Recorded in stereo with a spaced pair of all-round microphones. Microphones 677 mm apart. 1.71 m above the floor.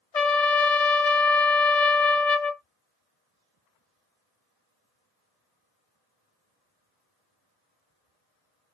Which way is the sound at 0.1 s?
65° left (ahead or behind).